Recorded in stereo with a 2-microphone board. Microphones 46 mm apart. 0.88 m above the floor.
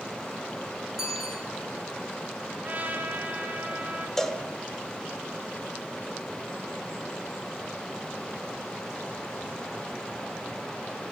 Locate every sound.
1.0 s a bicycle bell: 10° right (ahead or behind), 6.5 m
2.6 s a trumpet: 35° right (ahead or behind), 4.5 m
4.2 s a cowbell: 10° left (ahead or behind), 1.3 m